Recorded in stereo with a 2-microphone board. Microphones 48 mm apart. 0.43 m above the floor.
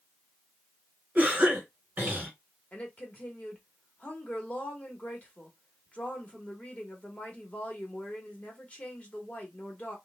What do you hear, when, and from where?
1.1 s a cough: 30° right (ahead or behind), 1.4 m
2.7 s a woman speaking: 30° left (ahead or behind), 1.0 m